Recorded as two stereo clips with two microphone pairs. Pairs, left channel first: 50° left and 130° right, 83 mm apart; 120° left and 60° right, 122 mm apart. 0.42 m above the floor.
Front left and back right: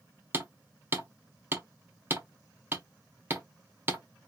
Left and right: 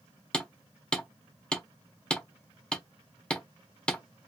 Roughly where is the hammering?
Behind.